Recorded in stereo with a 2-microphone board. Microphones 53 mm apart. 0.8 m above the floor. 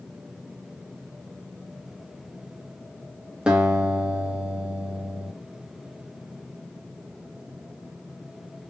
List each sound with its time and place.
3.5 s a guitar: 15° right (ahead or behind), 1.2 m